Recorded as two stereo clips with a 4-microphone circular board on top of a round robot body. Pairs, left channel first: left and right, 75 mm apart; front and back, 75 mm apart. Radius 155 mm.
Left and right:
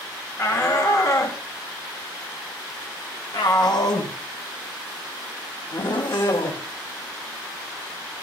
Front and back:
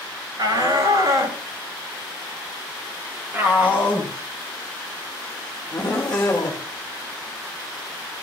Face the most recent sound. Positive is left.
turn(degrees=70)